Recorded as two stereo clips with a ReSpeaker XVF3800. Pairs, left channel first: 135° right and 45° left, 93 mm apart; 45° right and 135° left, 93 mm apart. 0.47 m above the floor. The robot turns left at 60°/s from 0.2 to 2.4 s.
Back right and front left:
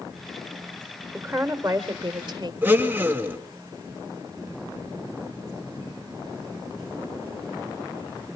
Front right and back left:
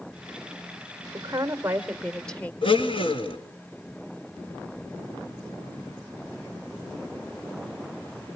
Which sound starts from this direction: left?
A woman speaking, at 1.1 s.